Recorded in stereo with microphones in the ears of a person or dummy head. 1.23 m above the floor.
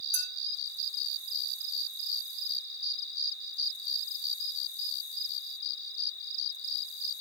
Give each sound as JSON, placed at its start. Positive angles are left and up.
{"t": 0.1, "sound": "a clink", "side_deg": -50, "distance_m": 2.5}